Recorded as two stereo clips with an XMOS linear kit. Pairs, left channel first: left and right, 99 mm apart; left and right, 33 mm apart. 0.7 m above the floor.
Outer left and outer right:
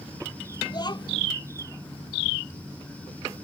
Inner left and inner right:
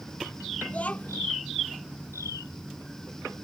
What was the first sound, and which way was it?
A child speaking, 45° left (ahead or behind).